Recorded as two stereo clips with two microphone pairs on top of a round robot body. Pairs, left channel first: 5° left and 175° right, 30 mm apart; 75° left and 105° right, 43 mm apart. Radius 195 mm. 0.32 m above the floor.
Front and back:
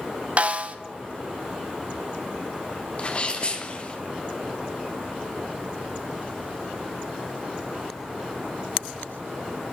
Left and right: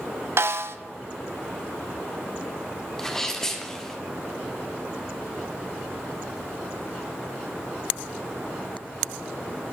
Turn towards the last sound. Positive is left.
turn(degrees=10)